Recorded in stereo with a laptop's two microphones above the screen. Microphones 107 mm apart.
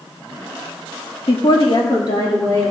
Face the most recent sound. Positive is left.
turn(degrees=40)  # may be behind; listen again after turning